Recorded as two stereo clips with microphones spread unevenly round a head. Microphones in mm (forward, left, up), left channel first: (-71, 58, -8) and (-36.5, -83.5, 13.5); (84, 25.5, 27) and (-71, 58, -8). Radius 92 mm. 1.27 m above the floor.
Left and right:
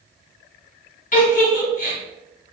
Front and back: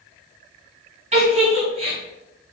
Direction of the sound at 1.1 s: 120° left.